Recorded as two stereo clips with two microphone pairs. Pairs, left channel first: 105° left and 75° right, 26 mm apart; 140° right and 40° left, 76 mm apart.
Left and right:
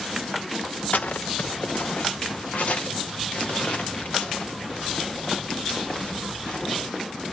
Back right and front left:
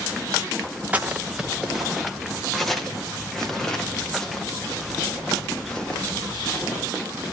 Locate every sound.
0.9 s footsteps: 110° left, 1.0 m; by 6.8 s 140° left, 5 m